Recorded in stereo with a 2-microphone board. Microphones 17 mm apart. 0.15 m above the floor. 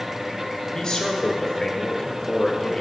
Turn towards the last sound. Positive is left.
turn(degrees=35)  # may be behind; listen again after turning